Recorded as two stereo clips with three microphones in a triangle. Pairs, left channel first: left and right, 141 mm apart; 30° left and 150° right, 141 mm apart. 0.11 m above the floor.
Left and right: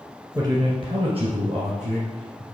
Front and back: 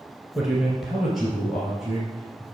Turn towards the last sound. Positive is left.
turn(degrees=-60)